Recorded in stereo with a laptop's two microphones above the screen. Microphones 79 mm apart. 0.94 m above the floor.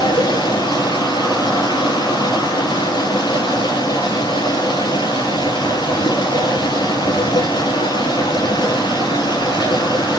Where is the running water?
80° left, 6 m.